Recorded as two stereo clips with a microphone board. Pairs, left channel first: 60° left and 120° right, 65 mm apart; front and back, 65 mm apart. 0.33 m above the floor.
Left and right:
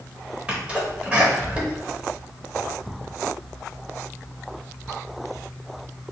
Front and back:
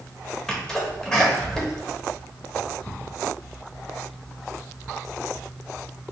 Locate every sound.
0.5 s a sneeze: 70° right, 1.2 m